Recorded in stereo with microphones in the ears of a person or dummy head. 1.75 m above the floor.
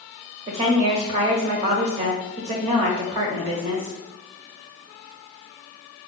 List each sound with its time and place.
0.5 s a woman speaking: 30° right (ahead or behind), 0.5 m